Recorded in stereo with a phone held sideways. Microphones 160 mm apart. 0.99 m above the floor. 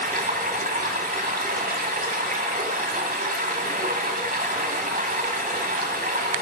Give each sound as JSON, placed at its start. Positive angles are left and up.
{"t": 0.0, "sound": "running water", "side_deg": -65, "distance_m": 2.0}